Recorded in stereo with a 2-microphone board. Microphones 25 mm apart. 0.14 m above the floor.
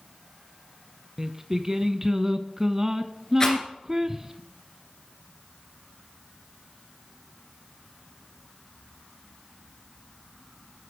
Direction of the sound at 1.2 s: 20° right (ahead or behind).